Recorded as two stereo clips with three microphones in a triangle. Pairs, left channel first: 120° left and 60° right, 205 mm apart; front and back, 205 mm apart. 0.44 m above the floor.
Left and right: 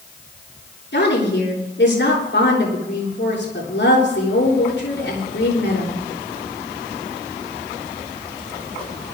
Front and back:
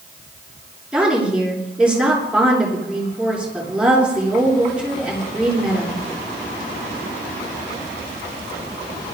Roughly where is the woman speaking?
Left.